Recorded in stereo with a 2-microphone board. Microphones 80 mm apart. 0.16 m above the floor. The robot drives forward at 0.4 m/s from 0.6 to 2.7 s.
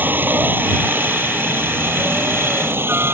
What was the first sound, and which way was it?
A helicopter, 25° right (ahead or behind).